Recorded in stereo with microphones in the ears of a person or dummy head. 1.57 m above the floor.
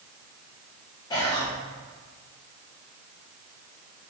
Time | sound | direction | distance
1.1 | whispering | 25° left (ahead or behind) | 0.8 m